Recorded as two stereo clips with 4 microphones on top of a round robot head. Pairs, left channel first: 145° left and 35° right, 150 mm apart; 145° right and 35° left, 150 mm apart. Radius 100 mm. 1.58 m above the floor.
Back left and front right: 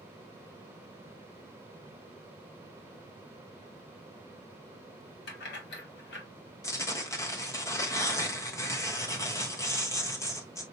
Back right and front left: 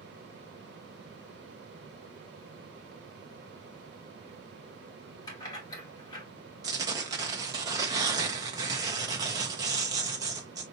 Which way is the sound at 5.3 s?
150° left.